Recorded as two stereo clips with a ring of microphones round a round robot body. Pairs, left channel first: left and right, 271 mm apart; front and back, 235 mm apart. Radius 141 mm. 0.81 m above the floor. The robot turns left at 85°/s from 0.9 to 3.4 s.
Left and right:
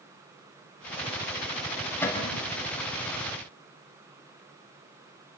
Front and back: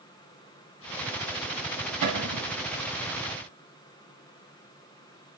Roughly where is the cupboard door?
Behind.